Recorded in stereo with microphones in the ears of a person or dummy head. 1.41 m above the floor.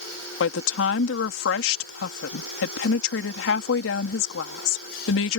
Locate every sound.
0.4 s a woman speaking: 80° left